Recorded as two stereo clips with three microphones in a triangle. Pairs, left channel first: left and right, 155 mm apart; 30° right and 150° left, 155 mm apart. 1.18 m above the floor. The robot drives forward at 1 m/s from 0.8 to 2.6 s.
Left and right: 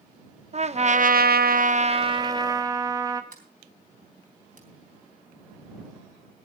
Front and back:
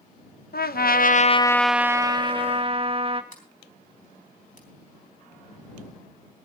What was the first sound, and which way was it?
A trumpet, 45° right.